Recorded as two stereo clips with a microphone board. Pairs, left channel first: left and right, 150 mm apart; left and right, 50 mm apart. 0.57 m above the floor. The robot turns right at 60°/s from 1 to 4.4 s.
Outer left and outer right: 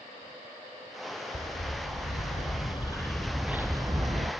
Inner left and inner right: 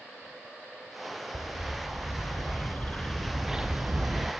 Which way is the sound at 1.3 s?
60° left.